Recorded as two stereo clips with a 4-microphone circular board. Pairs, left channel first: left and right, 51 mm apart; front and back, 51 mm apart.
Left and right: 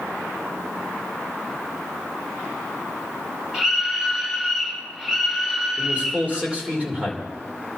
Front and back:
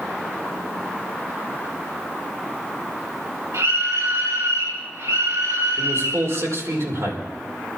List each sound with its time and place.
3.5 s a scream: 165° right, 3 m
5.8 s a man speaking: 155° right, 4.5 m